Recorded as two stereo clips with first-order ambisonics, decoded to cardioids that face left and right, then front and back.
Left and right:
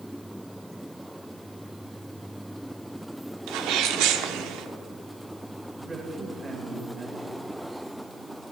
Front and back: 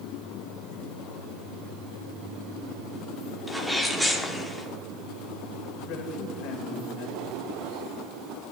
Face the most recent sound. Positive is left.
turn(degrees=-15)